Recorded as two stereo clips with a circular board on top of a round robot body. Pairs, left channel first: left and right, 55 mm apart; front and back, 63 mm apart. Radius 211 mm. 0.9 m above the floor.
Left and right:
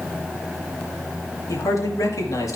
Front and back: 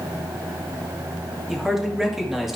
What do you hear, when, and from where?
1.5 s a man speaking: 95° left, 3 m